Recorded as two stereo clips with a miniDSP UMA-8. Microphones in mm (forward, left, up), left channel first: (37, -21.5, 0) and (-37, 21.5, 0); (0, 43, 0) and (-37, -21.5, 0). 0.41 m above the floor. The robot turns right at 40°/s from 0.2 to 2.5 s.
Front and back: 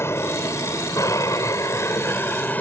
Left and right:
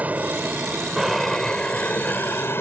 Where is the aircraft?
65° right; by 2.6 s 25° left.